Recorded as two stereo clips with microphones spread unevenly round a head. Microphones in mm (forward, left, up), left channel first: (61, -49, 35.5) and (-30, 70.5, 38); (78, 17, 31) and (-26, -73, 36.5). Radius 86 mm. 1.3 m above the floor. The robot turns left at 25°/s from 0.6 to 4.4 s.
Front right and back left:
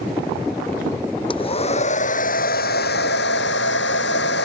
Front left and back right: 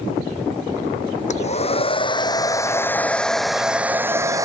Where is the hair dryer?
5° left; by 4.5 s 70° right.